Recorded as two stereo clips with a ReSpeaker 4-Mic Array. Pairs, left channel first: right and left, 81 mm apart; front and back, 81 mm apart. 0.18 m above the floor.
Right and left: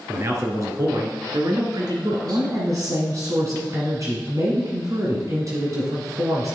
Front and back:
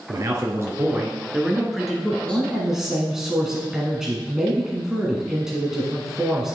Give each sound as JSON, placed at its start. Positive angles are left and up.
{"t": 0.1, "sound": "a man speaking", "azimuth_deg": 140, "distance_m": 2.5}
{"t": 2.2, "sound": "a woman speaking", "azimuth_deg": 100, "distance_m": 1.8}